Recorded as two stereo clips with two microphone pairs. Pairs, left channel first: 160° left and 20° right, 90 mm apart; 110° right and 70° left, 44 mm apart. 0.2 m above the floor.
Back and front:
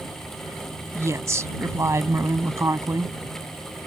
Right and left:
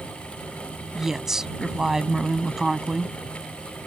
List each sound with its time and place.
0.9 s a woman speaking: straight ahead